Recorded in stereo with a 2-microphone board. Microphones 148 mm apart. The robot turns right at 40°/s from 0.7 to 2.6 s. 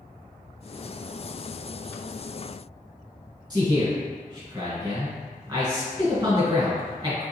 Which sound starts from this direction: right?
A man speaking, at 3.5 s.